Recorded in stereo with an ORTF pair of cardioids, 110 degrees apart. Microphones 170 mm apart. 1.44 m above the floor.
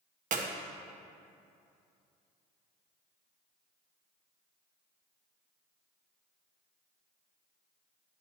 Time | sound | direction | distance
0.3 | a clap | 50° right | 1.0 m